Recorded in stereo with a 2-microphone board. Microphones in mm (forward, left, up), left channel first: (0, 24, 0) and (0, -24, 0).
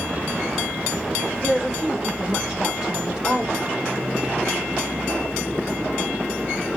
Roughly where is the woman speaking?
Centre.